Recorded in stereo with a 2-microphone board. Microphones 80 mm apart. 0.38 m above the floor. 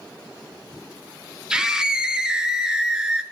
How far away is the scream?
About 0.8 m.